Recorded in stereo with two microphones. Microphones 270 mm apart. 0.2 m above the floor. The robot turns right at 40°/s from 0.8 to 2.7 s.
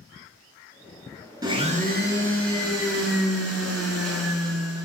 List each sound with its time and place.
1.4 s a blender: 165° right, 0.5 m; by 4.9 s 115° right, 0.5 m